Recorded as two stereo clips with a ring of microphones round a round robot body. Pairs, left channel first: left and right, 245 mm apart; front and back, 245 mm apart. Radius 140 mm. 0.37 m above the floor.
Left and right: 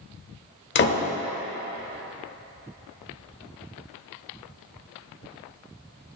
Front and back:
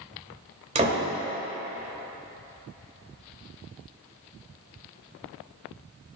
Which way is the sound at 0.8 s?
120° left.